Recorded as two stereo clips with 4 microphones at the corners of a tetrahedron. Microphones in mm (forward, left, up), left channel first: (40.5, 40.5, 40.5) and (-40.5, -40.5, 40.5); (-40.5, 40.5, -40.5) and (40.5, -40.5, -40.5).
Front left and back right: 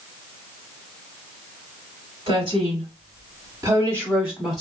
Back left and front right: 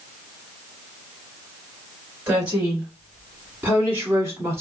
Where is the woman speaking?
120° right, 1.8 m; by 4.6 s 40° right, 1.1 m.